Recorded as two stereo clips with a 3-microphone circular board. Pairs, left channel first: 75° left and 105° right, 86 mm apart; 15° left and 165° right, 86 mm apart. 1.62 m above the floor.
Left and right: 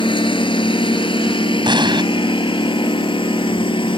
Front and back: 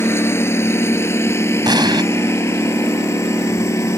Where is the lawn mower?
75° left; by 4.0 s 70° left.